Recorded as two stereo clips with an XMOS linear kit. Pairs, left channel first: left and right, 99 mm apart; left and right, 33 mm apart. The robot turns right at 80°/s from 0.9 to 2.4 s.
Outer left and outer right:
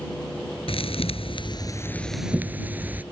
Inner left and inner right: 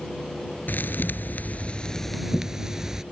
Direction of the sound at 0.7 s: 75° left.